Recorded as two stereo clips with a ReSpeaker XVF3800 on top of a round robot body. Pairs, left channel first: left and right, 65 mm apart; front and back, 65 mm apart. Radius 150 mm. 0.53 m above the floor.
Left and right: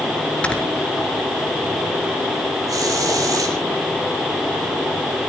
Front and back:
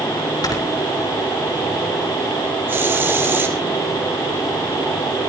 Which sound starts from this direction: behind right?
A hiss, at 2.7 s.